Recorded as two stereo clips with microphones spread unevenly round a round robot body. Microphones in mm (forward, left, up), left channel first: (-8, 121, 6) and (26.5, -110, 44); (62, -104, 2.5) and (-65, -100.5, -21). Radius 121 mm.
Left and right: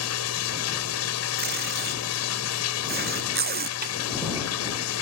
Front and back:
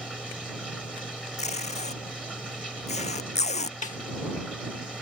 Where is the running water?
85° left.